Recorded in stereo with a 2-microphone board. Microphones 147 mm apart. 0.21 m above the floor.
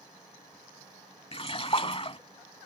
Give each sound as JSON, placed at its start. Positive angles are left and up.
{"t": 1.3, "sound": "a splash", "side_deg": 40}